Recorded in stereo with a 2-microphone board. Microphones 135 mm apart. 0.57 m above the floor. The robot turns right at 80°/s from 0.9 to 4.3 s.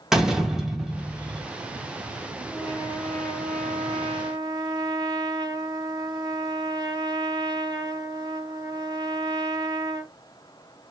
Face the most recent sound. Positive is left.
turn(degrees=-30)